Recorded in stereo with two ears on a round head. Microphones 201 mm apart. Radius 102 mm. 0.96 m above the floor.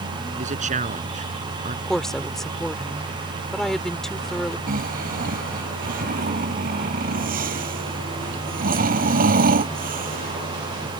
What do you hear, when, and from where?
0.3 s a man speaking: 35° right (ahead or behind)
1.9 s a woman speaking: centre (ahead or behind)
4.7 s snoring: 40° right (ahead or behind)